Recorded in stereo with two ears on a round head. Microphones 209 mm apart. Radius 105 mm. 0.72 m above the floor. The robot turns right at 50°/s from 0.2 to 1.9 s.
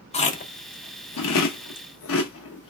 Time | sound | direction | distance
0.1 | chewing | 25° left (ahead or behind) | 0.8 m